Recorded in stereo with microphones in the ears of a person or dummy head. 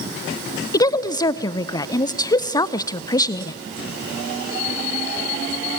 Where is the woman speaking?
25° left (ahead or behind), 0.6 m.